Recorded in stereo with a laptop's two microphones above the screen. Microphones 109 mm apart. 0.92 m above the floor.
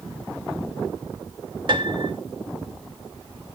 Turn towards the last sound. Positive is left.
turn(degrees=-50)  # may be behind; listen again after turning